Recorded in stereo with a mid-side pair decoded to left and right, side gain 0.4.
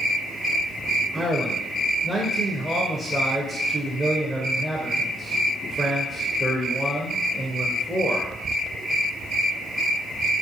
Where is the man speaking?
10° right, 0.8 m.